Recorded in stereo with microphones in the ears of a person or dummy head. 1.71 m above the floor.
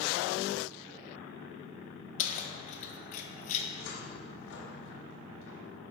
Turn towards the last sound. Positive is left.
turn(degrees=70)  # may be behind; listen again after turning